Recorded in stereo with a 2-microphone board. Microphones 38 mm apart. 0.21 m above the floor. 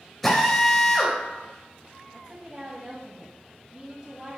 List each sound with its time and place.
0.2 s a drill: 10° left (ahead or behind), 3.5 m
2.1 s a woman speaking: 20° right (ahead or behind), 1.5 m